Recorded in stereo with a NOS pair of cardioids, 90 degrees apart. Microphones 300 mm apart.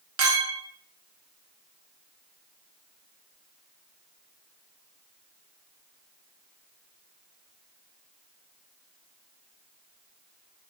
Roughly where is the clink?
Right.